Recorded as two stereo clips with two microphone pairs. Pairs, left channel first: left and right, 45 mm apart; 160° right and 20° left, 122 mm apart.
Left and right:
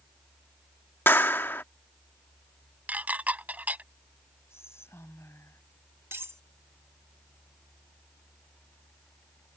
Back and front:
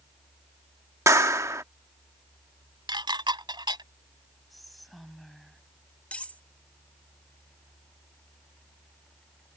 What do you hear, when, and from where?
1.1 s a clap: 80° left
2.9 s dishes clattering: 30° right
4.5 s whispering: 110° left
6.1 s cutlery clinking: 80° right